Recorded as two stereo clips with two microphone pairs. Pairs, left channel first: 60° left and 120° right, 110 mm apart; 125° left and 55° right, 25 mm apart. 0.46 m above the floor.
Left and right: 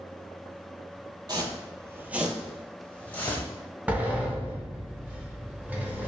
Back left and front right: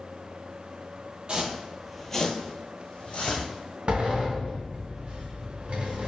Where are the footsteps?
85° right, 0.6 m; by 3.5 s 135° left, 1.3 m.